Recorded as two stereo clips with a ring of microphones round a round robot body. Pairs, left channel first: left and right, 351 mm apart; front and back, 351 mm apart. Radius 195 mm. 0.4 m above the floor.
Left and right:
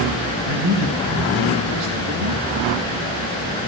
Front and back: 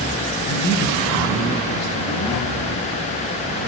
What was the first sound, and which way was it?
A man speaking, 60° right.